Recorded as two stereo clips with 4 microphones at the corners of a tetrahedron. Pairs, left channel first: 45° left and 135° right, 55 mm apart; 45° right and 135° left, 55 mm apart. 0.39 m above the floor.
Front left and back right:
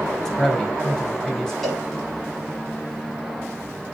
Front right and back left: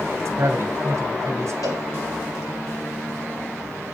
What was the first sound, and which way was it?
A man speaking, 130° left.